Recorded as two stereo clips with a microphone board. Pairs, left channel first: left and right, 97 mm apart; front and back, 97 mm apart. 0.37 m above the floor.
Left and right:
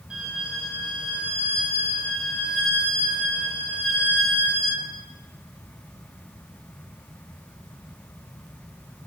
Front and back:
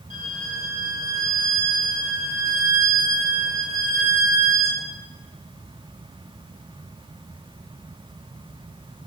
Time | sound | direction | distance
0.1 | a violin | 10° right | 1.1 m